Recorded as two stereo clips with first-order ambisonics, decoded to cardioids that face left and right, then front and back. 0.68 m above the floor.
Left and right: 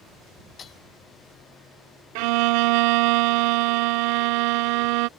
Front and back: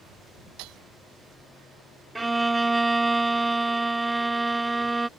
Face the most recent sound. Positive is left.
turn(degrees=-95)